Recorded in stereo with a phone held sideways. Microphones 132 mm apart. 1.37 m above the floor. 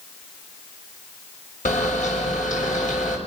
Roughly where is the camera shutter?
Left.